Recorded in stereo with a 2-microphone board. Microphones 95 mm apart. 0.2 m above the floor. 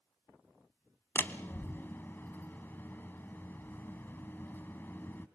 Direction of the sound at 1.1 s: 25° left (ahead or behind).